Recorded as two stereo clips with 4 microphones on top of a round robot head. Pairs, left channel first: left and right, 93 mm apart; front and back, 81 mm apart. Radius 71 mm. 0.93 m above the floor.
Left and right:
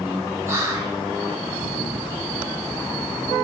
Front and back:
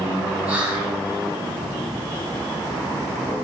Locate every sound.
0.5 s whispering: 115° right, 0.8 m